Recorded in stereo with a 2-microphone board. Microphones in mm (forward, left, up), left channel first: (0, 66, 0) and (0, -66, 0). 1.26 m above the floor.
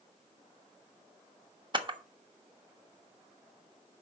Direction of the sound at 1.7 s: 35° right (ahead or behind).